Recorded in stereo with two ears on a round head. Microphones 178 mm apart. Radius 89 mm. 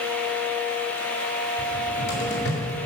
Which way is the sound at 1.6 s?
85° left.